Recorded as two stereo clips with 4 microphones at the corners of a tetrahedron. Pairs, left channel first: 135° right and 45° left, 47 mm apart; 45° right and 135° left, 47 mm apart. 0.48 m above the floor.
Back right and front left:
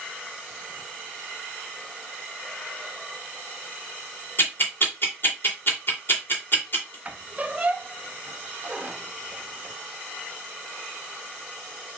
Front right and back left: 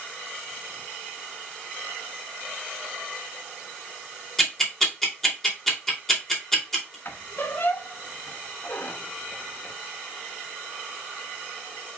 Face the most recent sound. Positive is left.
turn(degrees=-10)